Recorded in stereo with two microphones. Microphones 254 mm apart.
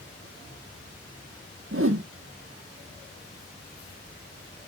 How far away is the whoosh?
About 0.7 m.